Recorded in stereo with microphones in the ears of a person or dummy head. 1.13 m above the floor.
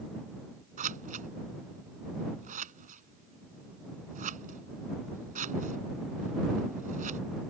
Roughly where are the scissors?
Right.